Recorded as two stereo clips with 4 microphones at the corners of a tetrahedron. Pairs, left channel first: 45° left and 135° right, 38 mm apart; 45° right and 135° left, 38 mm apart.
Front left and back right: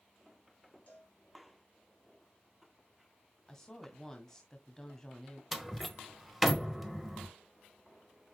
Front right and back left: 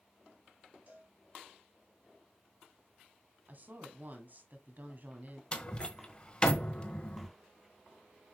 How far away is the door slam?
About 1.1 m.